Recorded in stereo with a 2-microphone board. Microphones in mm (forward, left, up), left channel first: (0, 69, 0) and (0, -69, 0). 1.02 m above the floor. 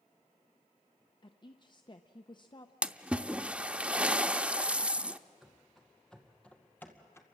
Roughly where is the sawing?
I don't hear sawing.